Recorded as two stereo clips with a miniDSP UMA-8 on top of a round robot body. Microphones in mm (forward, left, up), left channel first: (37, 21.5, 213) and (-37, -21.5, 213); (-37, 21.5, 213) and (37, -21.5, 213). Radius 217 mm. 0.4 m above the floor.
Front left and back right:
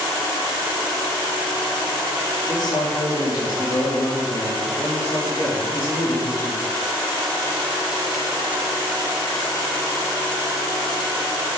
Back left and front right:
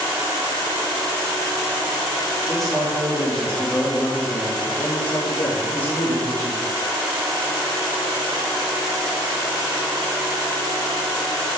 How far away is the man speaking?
About 2 m.